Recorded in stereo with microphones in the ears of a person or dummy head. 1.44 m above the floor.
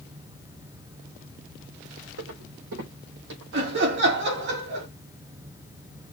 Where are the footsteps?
70° right (ahead or behind), 4.5 m; by 3.4 s 65° right (ahead or behind), 3.5 m.